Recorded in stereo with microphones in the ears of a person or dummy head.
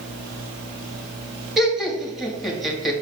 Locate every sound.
1.6 s laughter: 5° right (ahead or behind), 2.5 m